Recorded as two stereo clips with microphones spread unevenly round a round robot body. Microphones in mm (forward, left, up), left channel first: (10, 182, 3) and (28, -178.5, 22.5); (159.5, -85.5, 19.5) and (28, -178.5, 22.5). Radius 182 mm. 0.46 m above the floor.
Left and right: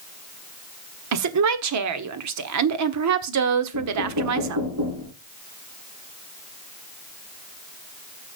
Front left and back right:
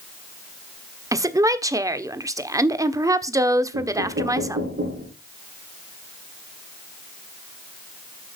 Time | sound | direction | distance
1.1 | a woman speaking | 85° right | 1.3 m
3.7 | knocking | 130° right | 6 m